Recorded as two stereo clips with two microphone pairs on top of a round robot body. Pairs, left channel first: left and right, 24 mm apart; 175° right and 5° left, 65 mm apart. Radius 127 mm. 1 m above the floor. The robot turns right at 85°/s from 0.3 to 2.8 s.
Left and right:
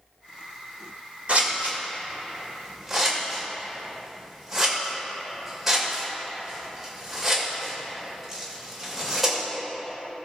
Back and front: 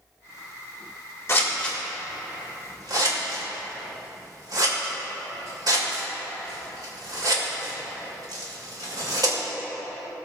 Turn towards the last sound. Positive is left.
turn(degrees=-5)